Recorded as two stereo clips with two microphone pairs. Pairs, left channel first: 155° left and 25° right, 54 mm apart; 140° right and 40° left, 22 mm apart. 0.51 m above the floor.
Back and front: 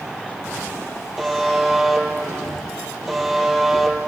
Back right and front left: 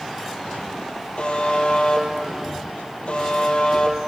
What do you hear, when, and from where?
1.2 s a buzzer: 115° right, 3.5 m